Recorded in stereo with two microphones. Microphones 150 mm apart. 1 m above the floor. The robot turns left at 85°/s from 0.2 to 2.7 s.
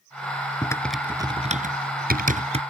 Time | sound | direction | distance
0.6 | typing on a keyboard | 25° left (ahead or behind) | ?